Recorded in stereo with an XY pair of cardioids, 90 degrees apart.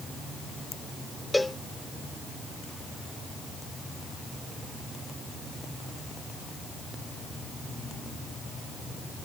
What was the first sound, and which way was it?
A cowbell, 10° left.